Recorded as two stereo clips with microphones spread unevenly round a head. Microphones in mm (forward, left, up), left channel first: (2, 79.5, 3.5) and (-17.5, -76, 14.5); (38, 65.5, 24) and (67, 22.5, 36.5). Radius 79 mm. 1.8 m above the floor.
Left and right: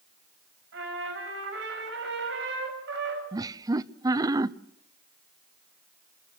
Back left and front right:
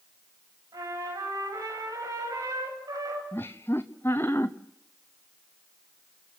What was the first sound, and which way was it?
A trumpet, 75° right.